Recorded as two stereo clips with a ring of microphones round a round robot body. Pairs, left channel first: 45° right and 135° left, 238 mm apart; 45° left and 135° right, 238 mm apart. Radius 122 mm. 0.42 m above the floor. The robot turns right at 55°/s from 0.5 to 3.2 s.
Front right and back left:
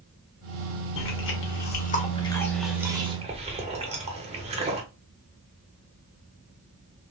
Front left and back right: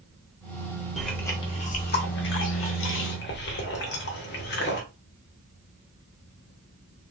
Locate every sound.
1.0 s chewing: 45° right, 0.9 m; by 4.8 s 75° left, 0.9 m